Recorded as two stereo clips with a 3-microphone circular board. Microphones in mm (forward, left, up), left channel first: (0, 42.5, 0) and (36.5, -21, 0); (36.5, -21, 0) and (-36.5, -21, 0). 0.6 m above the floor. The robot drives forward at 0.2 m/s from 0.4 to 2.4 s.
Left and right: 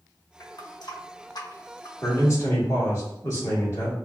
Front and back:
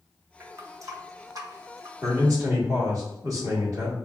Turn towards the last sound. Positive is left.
turn(degrees=155)